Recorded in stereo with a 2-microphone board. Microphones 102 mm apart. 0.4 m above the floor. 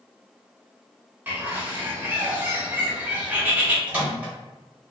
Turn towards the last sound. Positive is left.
turn(degrees=-15)  # may be behind; listen again after turning